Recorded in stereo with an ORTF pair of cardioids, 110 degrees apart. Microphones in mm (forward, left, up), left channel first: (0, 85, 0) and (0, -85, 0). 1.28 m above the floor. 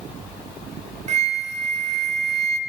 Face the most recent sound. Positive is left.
turn(degrees=-40)